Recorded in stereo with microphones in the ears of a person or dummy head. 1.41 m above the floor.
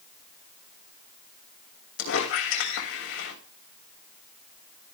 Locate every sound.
2.0 s a squeak: 70° left (ahead or behind), 2.5 m